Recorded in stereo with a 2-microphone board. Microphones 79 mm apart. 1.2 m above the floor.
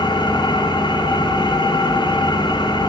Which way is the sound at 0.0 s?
80° left.